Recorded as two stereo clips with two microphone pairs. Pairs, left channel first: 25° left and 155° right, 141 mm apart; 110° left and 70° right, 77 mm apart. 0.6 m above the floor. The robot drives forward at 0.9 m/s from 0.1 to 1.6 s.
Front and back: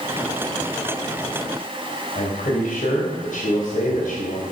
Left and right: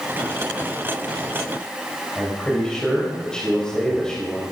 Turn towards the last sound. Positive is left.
turn(degrees=30)